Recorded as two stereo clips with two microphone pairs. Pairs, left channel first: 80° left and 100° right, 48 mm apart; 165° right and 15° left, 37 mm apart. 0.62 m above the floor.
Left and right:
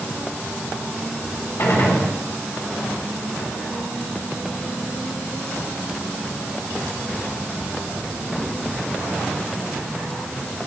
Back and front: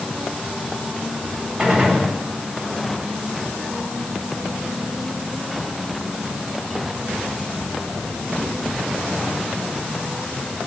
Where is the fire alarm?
I don't hear a fire alarm.